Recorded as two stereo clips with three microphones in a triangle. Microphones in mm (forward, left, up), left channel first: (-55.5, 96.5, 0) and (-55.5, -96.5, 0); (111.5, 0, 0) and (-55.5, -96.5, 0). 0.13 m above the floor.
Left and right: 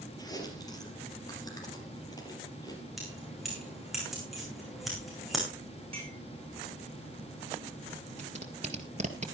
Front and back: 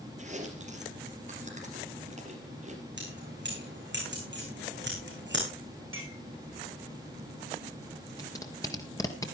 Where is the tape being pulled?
40° right, 1.8 m.